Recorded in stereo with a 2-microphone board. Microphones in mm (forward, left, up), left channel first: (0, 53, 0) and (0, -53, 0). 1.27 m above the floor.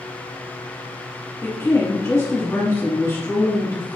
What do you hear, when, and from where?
1.4 s a woman speaking: 25° left (ahead or behind), 1.6 m